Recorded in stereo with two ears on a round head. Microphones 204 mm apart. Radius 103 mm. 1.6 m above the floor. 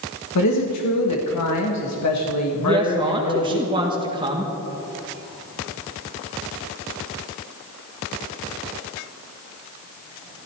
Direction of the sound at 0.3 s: 85° left.